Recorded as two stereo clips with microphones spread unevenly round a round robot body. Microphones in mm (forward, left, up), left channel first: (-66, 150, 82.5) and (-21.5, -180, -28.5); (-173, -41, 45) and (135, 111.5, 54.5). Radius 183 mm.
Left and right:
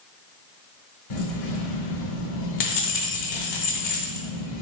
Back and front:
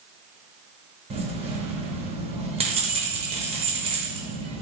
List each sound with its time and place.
1.1 s keys jangling: 95° left, 0.9 m